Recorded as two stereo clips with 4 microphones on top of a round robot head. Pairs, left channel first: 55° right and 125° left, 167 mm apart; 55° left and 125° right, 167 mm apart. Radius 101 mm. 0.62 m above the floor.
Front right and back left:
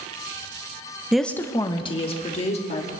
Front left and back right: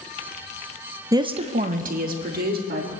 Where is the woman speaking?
155° right, 0.7 m; by 2.9 s 100° right, 2.5 m.